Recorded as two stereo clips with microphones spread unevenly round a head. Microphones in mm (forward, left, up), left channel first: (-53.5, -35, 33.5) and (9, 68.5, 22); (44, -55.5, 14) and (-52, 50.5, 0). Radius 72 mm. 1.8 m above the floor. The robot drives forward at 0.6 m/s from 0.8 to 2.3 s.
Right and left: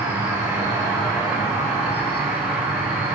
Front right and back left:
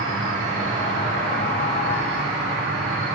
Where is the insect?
125° left, 3.5 m; by 3.2 s 135° left, 4 m.